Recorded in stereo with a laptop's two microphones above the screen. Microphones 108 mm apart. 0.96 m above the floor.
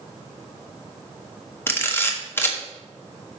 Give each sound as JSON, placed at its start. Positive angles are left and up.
{"t": 1.7, "sound": "a camera shutter", "side_deg": 20, "distance_m": 1.0}